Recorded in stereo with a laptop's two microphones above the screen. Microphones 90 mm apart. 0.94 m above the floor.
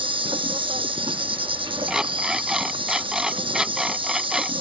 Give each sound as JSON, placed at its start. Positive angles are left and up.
{"t": 0.0, "sound": "an insect", "side_deg": -70}
{"t": 1.9, "sound": "an alarm clock", "side_deg": -5}